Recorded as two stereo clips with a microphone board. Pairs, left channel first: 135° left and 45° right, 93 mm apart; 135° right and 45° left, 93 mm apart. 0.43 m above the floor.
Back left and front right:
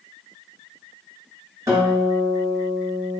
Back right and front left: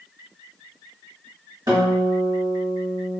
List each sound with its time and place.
1.7 s a guitar: 5° left, 1.9 m